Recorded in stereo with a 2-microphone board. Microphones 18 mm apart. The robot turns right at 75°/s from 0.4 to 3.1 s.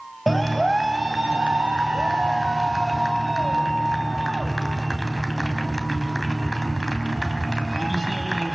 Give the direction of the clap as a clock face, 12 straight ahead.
6 o'clock.